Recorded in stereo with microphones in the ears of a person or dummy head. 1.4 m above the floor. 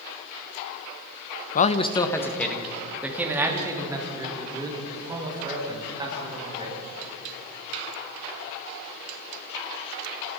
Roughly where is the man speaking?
Left.